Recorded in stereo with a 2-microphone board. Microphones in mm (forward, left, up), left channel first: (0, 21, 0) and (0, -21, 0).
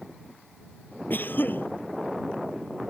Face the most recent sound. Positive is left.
turn(degrees=55)  # may be behind; listen again after turning